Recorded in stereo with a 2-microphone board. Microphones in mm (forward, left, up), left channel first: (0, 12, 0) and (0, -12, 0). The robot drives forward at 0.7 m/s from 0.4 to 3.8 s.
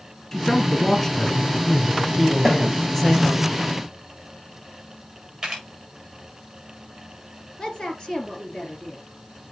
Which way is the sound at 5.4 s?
15° right (ahead or behind).